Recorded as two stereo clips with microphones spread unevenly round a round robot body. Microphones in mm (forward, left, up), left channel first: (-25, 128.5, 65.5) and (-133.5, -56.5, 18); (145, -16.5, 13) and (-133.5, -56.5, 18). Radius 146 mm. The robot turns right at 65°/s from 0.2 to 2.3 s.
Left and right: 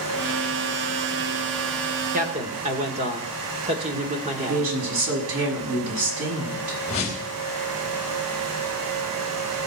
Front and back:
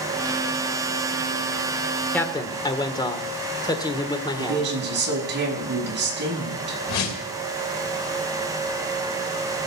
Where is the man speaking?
75° right, 1.7 m; by 4.7 s 65° right, 1.7 m.